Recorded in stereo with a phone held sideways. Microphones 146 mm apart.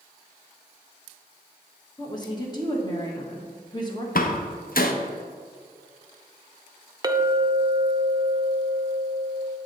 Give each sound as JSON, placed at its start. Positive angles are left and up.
{"t": 2.0, "sound": "a woman speaking", "side_deg": 25, "distance_m": 1.3}
{"t": 4.2, "sound": "a door slam", "side_deg": 65, "distance_m": 0.7}
{"t": 7.0, "sound": "a clink", "side_deg": -25, "distance_m": 0.5}